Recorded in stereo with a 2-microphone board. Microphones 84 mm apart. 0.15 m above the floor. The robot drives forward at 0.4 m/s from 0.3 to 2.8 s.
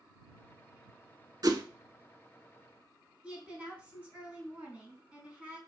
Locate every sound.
1.4 s a whoosh: 50° right (ahead or behind), 0.6 m
3.2 s a woman speaking: 15° right (ahead or behind), 1.6 m